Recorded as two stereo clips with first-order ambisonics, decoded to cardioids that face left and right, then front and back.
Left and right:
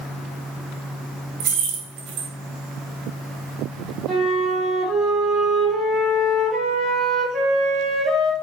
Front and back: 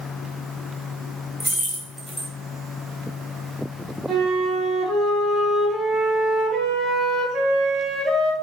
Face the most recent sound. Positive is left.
turn(degrees=-130)